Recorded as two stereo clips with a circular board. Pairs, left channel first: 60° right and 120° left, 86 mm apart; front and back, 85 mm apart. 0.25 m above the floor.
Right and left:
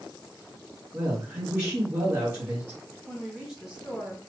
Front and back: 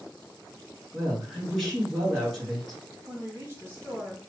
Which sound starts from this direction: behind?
A woman speaking, at 3.1 s.